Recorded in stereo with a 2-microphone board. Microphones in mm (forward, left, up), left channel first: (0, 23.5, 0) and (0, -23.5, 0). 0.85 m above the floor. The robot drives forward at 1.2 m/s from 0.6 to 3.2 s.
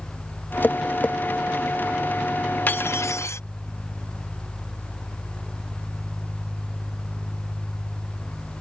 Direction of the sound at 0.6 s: 40° left (ahead or behind).